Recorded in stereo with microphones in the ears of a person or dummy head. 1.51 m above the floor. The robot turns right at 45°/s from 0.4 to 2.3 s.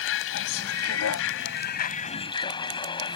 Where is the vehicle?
70° left; by 3.2 s 155° left.